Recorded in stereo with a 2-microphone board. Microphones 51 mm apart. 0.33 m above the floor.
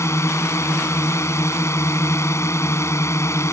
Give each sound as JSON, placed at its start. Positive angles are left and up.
{"t": 0.0, "sound": "a drone", "side_deg": 65}